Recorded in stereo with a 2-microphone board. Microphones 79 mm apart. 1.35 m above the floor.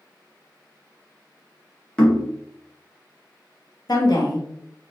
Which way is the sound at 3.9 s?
60° left (ahead or behind).